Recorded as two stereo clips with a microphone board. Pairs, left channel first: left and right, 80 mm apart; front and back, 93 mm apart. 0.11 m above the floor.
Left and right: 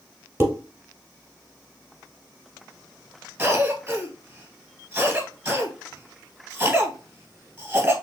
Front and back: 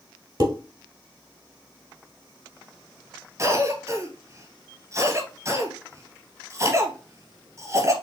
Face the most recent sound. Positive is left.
turn(degrees=-155)